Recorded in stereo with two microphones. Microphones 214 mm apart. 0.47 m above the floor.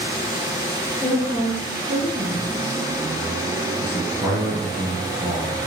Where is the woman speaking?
20° right (ahead or behind), 6 m.